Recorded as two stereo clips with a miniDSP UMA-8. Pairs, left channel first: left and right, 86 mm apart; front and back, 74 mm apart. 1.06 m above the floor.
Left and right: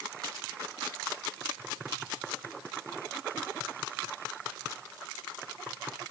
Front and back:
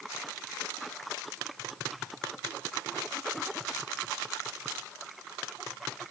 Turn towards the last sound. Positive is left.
No sound to turn to.